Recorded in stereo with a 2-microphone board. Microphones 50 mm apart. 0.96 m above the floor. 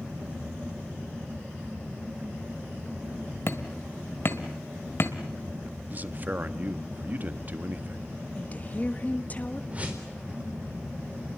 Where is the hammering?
50° left (ahead or behind), 1.7 m.